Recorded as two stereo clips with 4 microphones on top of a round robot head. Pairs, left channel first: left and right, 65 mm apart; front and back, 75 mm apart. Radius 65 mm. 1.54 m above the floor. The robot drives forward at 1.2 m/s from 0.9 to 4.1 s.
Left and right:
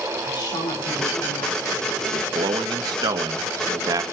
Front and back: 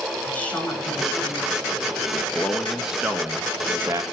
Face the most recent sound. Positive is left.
turn(degrees=-120)